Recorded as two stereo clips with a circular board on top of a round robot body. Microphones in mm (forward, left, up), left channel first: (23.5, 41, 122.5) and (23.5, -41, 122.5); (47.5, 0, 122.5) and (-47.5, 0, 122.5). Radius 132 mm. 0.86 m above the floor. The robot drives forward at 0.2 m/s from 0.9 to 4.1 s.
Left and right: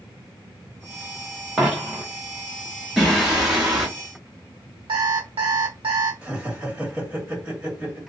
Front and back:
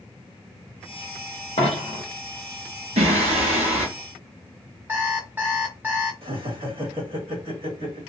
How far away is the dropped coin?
About 0.7 m.